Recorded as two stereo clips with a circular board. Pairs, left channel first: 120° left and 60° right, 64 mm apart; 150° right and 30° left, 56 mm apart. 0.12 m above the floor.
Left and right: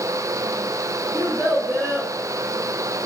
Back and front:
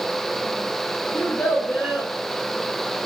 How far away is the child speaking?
About 1.9 m.